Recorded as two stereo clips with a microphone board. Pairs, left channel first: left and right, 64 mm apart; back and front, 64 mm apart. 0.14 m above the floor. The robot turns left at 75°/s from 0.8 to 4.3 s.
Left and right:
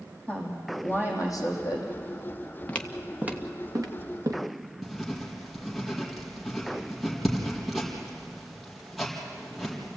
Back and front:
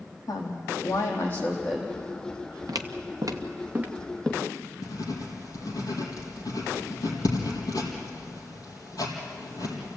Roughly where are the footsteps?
Ahead left.